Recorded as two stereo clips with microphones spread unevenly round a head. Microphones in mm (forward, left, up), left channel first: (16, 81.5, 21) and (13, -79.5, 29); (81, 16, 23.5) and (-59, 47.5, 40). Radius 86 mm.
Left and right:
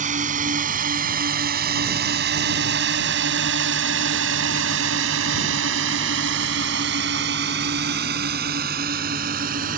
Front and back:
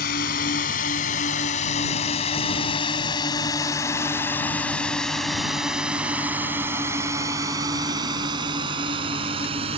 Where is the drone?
45° right; by 9.8 s 135° right.